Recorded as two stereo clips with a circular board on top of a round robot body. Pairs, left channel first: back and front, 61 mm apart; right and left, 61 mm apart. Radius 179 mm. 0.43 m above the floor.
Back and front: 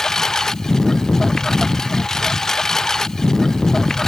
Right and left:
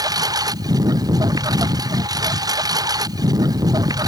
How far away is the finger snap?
I don't hear a finger snap.